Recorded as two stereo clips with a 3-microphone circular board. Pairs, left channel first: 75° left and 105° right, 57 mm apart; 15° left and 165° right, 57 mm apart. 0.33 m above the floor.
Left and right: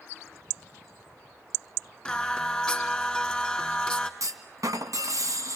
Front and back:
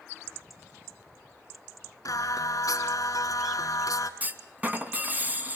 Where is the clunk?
105° right, 2 m.